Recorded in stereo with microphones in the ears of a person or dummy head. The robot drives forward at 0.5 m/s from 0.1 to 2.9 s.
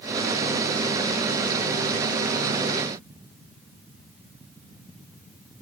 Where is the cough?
No cough in this recording.